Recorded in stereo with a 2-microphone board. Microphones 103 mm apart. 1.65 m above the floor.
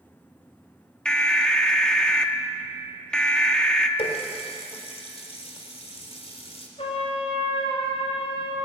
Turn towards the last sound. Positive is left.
turn(degrees=65)  # may be behind; listen again after turning